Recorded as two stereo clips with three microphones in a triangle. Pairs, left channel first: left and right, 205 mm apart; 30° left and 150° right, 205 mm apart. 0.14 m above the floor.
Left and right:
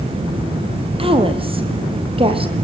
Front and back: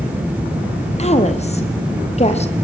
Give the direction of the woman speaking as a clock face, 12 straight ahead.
1 o'clock.